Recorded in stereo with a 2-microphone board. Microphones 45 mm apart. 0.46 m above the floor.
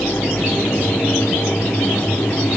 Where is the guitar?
I don't hear a guitar.